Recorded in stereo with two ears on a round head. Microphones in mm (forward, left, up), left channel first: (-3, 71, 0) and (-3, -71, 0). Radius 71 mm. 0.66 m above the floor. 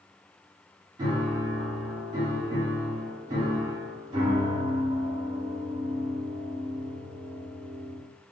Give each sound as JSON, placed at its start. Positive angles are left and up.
{"t": 1.0, "sound": "a piano", "side_deg": -30, "distance_m": 1.2}